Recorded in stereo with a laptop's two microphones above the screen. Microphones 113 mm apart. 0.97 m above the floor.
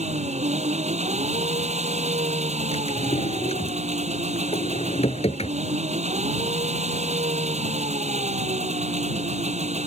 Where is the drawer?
65° left (ahead or behind).